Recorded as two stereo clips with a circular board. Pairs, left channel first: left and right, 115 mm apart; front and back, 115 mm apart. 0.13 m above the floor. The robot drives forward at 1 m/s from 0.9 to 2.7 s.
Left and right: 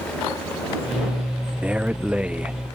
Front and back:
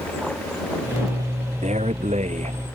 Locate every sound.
1.6 s a man speaking: 170° right